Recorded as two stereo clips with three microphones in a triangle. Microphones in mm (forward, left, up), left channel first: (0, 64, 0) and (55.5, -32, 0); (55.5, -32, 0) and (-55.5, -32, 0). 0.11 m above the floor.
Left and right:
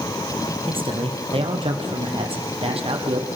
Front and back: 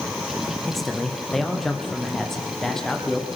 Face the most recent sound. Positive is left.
turn(degrees=-85)